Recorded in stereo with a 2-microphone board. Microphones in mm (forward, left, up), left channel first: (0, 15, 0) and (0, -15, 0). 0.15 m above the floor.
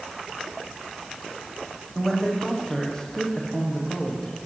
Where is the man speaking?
20° left (ahead or behind), 7 m.